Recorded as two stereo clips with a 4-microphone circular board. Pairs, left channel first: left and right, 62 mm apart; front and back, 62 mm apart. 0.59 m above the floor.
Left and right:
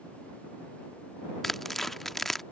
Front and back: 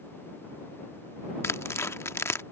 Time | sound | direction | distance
1.4 | tearing paper | 5° left | ?